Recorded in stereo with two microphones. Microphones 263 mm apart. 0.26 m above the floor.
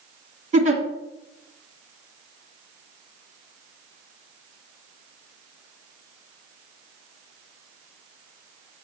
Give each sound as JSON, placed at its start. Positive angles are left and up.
{"t": 0.5, "sound": "a giggle", "side_deg": -30, "distance_m": 1.4}